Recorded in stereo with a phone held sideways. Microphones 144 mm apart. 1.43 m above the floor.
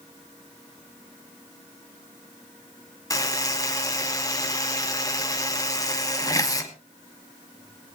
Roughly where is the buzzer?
Left.